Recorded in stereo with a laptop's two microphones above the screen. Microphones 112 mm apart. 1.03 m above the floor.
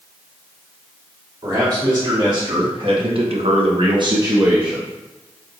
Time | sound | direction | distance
1.4 | a man speaking | 35° right (ahead or behind) | 3 m